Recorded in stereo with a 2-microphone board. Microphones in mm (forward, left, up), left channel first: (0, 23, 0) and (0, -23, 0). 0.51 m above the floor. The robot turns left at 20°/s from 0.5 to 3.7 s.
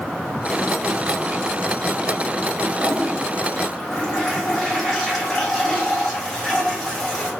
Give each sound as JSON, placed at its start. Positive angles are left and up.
{"t": 2.8, "sound": "a toilet flushing", "side_deg": 0, "distance_m": 1.2}